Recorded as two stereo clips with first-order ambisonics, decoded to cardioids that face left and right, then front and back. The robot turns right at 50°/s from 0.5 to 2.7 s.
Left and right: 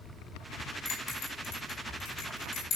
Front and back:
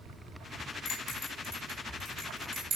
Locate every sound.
0.8 s a bell: 45° left, 4 m; by 2.8 s 140° left, 4 m